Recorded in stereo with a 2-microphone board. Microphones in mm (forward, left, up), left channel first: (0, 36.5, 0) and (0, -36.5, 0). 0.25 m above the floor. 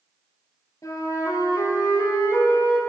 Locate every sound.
0.8 s a flute: 50° left (ahead or behind), 3 m